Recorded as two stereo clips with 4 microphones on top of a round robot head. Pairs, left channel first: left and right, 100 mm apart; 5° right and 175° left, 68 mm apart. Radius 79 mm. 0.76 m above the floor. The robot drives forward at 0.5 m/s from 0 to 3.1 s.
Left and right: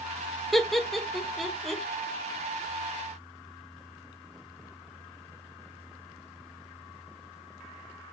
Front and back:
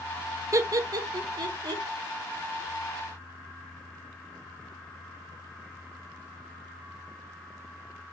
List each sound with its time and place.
0.5 s laughter: straight behind, 0.5 m